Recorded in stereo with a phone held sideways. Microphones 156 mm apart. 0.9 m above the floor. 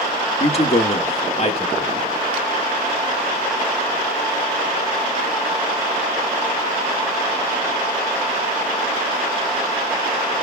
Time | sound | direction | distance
0.4 | a man speaking | 40° left (ahead or behind) | 1.5 m